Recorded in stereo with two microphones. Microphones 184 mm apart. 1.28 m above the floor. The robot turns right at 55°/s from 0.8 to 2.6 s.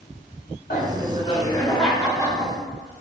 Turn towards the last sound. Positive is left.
turn(degrees=-140)